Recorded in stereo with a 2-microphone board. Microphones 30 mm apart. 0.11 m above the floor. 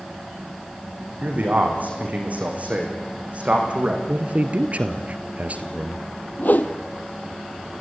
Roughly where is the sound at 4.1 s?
Right.